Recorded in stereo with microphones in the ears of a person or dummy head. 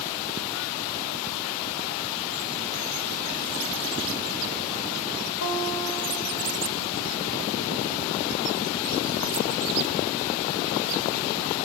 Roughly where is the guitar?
Left.